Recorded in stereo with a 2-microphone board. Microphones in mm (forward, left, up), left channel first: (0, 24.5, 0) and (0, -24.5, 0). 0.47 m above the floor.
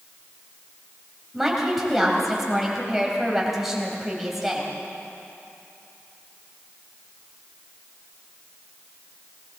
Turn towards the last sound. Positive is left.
turn(degrees=-5)  # may be behind; listen again after turning